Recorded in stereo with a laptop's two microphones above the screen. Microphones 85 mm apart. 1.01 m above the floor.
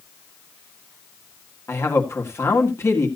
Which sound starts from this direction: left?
A man speaking, at 1.7 s.